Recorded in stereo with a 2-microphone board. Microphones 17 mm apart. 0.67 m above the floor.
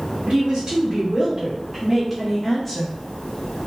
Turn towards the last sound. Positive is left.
turn(degrees=20)  # may be behind; listen again after turning